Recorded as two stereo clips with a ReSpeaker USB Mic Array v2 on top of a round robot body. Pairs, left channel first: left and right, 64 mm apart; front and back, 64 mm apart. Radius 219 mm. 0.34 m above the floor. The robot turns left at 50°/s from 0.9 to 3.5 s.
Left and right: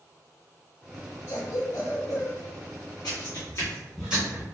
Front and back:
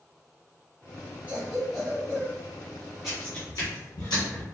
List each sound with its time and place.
1.3 s a cough: 130° left, 1.1 m; by 2.4 s 75° left, 1.1 m
3.0 s footsteps: 95° left, 1.1 m; by 4.4 s 35° right, 1.0 m